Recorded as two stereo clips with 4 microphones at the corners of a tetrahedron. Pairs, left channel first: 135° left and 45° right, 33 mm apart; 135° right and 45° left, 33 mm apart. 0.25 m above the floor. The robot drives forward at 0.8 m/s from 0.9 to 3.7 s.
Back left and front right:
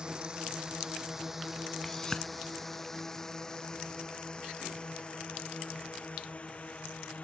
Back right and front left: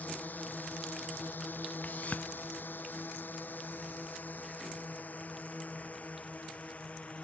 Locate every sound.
0.0 s a drone: 110° right; by 7.2 s straight behind
1.8 s a whoosh: 150° right; by 2.3 s 160° right